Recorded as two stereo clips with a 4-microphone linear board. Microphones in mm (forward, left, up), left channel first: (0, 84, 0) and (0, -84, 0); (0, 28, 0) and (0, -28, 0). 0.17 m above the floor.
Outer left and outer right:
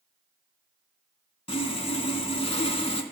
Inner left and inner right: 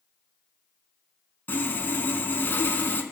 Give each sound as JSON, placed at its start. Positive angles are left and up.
{"t": 1.5, "sound": "sawing", "side_deg": 35, "distance_m": 0.8}